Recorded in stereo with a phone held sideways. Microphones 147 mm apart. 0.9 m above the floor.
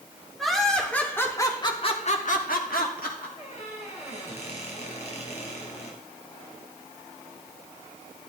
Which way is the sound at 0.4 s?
Centre (ahead or behind).